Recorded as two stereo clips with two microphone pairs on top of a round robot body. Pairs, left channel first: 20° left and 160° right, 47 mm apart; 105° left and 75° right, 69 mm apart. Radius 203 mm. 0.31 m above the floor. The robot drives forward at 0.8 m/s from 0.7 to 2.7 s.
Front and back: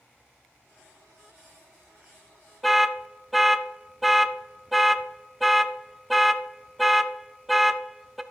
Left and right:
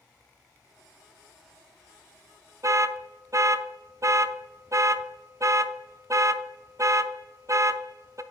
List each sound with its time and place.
2.6 s an alarm: 60° right, 0.6 m; by 8.2 s 70° right, 0.6 m